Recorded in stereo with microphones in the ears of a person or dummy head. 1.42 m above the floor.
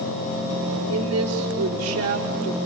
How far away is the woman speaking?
About 4.5 m.